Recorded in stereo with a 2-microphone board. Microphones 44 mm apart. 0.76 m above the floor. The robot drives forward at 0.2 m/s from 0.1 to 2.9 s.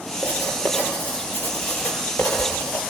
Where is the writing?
60° left (ahead or behind), 8 m; by 2.8 s 55° left (ahead or behind), 8 m.